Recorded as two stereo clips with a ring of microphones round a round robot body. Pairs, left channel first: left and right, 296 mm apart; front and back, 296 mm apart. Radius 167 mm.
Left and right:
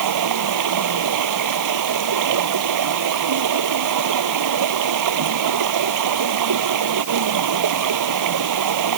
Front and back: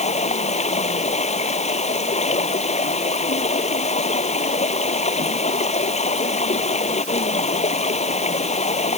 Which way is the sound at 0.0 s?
70° right.